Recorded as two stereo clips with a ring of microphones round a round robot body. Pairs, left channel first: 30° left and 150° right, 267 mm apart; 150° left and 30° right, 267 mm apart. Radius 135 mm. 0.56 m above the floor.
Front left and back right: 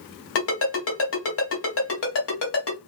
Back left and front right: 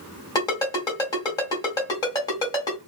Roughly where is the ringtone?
Left.